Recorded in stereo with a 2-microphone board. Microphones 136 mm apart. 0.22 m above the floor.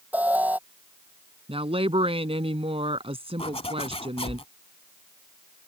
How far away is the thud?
I don't hear a thud.